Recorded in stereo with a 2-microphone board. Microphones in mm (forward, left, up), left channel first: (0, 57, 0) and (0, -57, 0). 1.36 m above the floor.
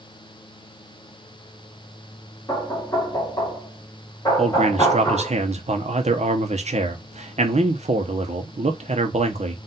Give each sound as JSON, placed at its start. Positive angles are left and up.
{"t": 2.5, "sound": "knocking", "side_deg": 30, "distance_m": 2.0}
{"t": 4.4, "sound": "a man speaking", "side_deg": -75, "distance_m": 0.9}